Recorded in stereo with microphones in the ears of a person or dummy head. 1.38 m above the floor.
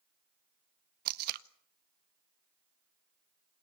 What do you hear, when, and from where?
1.1 s tape being pulled: 50° right (ahead or behind), 0.8 m